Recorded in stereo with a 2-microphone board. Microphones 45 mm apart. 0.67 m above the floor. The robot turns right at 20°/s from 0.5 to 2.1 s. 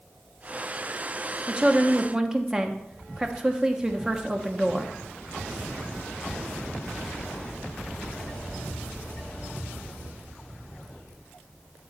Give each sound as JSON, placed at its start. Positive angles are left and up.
{"t": 1.5, "sound": "a woman speaking", "side_deg": -25, "distance_m": 0.8}